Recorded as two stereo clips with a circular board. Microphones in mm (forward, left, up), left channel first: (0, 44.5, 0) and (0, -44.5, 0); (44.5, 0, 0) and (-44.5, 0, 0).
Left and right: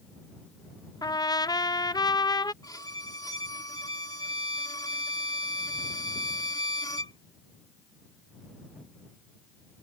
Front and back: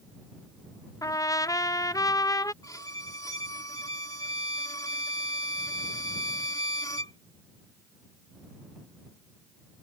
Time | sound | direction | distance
1.0 | a trumpet | 50° left | ?
2.6 | a violin | 50° left | ?